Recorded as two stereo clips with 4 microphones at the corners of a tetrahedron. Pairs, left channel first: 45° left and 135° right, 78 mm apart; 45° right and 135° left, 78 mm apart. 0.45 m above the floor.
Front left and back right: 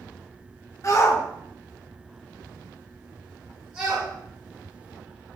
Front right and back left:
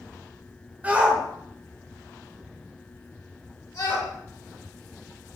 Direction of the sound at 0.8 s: 75° left.